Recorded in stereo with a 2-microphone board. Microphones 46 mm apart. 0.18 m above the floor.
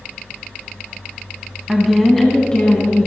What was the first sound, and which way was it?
A woman speaking, 10° right (ahead or behind).